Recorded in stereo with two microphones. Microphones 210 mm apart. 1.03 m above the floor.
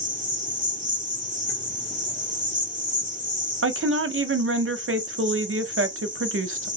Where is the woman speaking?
80° right, 0.5 m.